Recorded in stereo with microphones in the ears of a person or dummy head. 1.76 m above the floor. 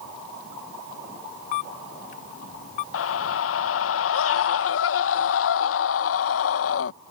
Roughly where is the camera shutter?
Left.